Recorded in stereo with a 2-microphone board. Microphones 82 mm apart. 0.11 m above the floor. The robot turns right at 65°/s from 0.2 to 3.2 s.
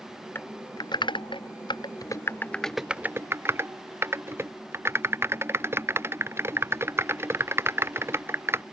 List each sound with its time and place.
0.3 s typing on a keyboard: 25° left (ahead or behind); by 8.6 s 30° right (ahead or behind)